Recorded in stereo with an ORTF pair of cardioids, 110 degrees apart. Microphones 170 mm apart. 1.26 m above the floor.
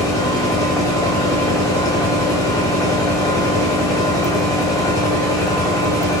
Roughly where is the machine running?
Ahead.